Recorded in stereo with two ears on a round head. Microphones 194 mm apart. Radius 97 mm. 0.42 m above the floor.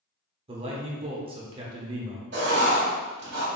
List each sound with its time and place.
0.5 s a man speaking: 25° right (ahead or behind), 0.8 m
2.3 s writing: 50° right (ahead or behind), 1.7 m